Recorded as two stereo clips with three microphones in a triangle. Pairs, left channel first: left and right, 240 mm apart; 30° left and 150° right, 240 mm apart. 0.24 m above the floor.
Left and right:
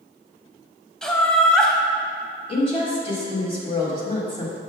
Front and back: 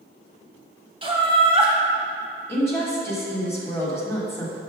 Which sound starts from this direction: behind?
Laughter, at 1.0 s.